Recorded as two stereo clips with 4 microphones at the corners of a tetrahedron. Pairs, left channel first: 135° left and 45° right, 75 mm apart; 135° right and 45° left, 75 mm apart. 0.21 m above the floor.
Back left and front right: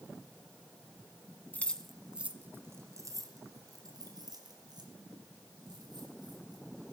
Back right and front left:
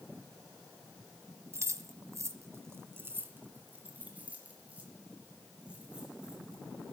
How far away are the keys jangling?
About 1.4 m.